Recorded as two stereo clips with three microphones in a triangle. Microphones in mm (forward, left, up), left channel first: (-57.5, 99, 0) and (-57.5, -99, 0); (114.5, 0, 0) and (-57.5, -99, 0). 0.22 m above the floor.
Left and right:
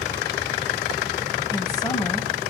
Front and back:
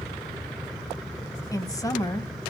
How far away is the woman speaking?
About 1.0 m.